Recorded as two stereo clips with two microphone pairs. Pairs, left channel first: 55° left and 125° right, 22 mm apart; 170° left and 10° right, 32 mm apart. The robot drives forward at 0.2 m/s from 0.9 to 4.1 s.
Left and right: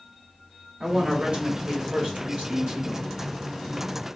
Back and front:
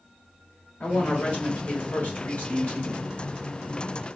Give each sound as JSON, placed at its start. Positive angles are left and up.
{"t": 0.8, "sound": "a woman speaking", "azimuth_deg": -150, "distance_m": 1.6}